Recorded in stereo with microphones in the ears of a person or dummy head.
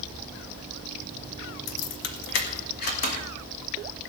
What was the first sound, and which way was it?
Keys jangling, 75° left (ahead or behind).